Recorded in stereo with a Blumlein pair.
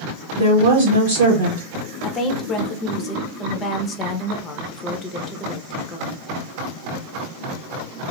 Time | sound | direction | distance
0.4 | a woman speaking | 60° right | 1.0 m
2.0 | a woman speaking | 25° left | 0.8 m